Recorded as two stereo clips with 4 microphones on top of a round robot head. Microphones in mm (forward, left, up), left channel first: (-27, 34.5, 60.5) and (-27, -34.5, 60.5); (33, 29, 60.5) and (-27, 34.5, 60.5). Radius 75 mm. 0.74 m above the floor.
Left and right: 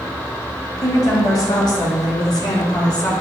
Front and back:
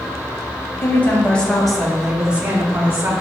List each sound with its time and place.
0.8 s a woman speaking: 50° left, 1.3 m; by 3.1 s 120° left, 1.6 m